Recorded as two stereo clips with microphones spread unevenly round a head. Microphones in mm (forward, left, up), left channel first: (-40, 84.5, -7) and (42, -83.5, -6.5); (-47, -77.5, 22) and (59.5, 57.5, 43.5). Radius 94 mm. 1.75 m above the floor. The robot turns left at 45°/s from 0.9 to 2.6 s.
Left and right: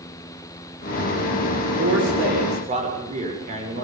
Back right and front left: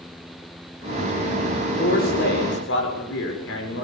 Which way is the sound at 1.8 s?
85° right.